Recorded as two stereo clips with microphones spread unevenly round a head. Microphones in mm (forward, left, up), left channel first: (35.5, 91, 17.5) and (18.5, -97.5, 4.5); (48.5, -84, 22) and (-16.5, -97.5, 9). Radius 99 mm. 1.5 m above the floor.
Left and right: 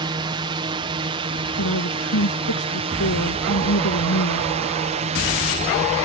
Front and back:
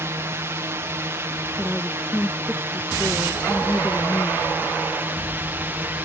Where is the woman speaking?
90° left.